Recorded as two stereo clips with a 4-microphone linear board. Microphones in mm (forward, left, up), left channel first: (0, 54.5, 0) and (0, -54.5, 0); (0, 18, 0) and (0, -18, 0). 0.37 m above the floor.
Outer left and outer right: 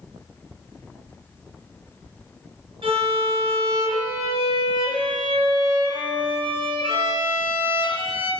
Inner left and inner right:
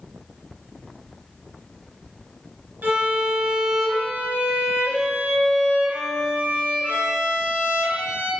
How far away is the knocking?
I don't hear knocking.